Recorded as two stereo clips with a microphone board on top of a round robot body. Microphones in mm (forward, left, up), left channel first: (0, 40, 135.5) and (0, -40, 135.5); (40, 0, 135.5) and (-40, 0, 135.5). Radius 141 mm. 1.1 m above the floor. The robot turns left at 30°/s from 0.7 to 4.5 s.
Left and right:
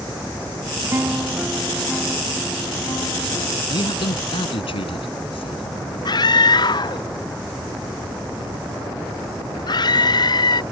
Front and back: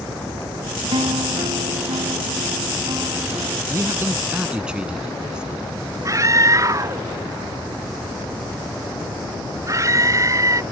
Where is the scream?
125° left.